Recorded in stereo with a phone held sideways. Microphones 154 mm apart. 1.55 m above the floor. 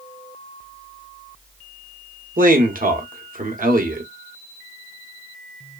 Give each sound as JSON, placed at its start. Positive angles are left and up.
{"t": 2.4, "sound": "a man speaking", "side_deg": -65, "distance_m": 0.8}